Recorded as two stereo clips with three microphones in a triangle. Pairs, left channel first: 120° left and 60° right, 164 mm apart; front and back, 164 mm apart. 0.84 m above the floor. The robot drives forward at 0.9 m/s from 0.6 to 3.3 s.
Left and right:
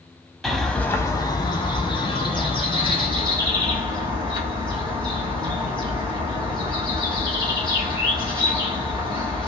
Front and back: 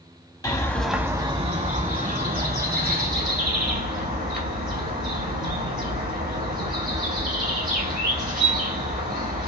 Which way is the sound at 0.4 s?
35° left.